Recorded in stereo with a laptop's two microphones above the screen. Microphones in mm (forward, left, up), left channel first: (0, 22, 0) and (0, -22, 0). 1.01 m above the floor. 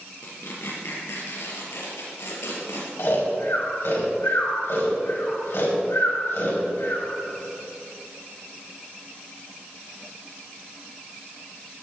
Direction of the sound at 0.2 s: 80° left.